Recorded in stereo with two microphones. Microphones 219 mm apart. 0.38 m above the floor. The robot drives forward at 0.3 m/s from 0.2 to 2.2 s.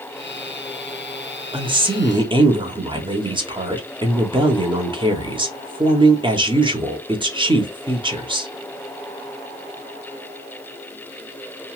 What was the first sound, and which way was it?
A woman speaking, 20° right (ahead or behind).